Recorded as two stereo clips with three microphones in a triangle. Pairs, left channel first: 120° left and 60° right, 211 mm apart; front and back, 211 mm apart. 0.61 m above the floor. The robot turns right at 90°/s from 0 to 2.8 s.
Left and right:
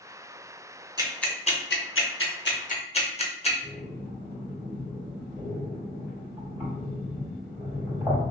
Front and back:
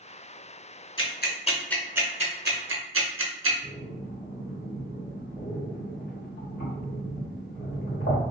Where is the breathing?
20° left, 2.0 m.